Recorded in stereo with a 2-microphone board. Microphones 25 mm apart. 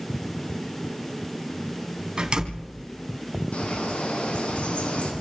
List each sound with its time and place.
2.2 s a door slam: 35° right (ahead or behind), 3.5 m
3.5 s a bird: 65° left (ahead or behind), 6 m